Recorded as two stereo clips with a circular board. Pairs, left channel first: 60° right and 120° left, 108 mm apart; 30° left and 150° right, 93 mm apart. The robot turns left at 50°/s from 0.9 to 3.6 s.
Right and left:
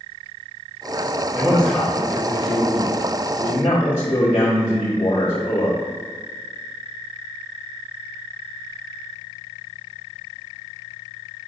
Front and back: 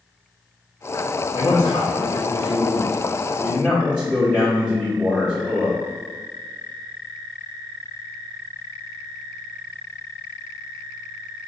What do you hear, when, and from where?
1.3 s a man speaking: 40° left, 1.7 m; by 5.8 s 70° right, 1.7 m